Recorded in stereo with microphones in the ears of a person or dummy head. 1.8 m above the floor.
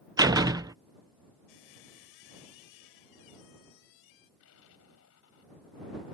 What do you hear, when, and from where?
0.2 s a door slam: 20° right (ahead or behind)
1.5 s a squeak: 65° left (ahead or behind)
4.4 s an explosion: 75° left (ahead or behind)